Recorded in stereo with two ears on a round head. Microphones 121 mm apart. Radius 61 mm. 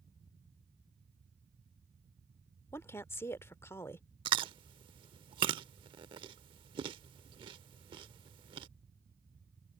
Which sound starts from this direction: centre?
A woman speaking, at 2.7 s.